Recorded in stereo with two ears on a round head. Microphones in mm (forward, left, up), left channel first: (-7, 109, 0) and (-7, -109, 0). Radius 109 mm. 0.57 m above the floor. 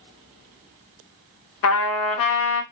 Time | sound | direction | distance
1.6 | a trumpet | 60° left (ahead or behind) | 0.6 m